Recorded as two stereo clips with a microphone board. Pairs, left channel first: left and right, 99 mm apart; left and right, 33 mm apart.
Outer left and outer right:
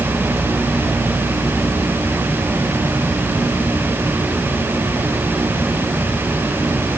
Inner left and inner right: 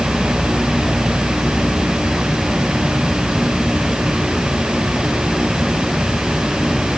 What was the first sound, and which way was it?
Only background noise.